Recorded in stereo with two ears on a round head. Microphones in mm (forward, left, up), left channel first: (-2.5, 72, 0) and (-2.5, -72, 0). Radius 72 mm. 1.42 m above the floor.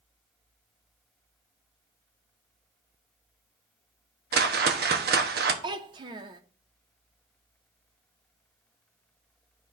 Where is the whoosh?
70° right (ahead or behind), 0.9 m.